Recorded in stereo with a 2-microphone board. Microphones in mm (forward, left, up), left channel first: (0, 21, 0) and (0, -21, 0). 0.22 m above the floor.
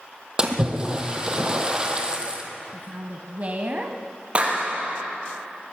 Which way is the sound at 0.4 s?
20° right (ahead or behind).